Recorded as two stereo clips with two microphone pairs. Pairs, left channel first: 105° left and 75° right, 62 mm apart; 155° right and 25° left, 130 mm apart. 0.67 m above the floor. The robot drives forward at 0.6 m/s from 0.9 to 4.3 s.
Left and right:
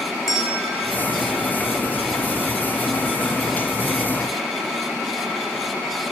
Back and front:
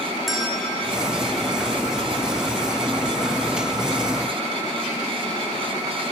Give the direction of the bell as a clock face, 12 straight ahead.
8 o'clock.